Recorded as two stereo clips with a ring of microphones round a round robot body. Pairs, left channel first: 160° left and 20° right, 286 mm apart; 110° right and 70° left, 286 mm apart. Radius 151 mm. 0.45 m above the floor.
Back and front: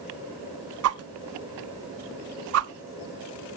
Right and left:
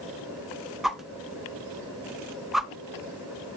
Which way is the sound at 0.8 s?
20° right.